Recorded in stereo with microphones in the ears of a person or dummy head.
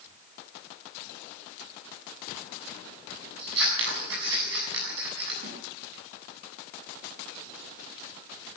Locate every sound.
3.4 s scissors: 70° right (ahead or behind), 7 m
5.4 s a snare drum: 50° right (ahead or behind), 9 m